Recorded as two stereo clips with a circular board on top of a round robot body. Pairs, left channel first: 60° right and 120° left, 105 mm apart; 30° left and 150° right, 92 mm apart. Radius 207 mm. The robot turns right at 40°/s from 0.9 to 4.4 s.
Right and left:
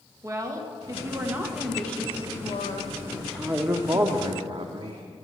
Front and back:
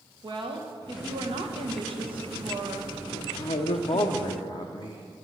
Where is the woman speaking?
Straight behind, 1.4 m; by 4.1 s 50° right, 1.4 m.